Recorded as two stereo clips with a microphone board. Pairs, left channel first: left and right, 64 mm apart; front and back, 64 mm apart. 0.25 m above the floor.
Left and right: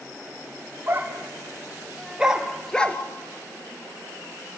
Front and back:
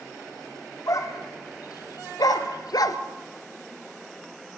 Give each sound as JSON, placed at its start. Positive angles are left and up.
{"t": 0.9, "sound": "a dog barking", "azimuth_deg": -30, "distance_m": 4.0}